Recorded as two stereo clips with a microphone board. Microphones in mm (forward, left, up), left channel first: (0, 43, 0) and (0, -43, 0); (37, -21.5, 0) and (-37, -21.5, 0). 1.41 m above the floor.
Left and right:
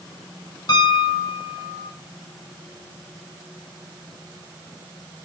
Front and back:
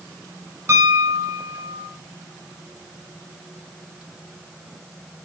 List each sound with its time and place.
0.7 s a piano: 125° left, 6.5 m